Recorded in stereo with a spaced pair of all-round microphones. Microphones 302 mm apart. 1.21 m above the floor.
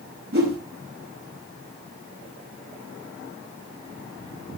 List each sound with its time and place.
0.3 s a whoosh: 45° right (ahead or behind), 3.5 m